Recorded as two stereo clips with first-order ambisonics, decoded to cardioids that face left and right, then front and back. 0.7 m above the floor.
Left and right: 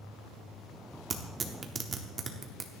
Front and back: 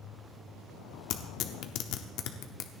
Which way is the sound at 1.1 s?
25° right.